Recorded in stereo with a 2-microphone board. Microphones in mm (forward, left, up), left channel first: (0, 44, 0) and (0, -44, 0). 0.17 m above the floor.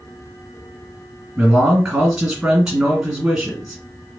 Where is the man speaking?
10° right (ahead or behind), 1.7 m.